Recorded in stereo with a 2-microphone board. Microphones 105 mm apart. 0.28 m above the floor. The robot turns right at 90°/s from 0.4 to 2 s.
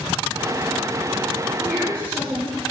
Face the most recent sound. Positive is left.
turn(degrees=25)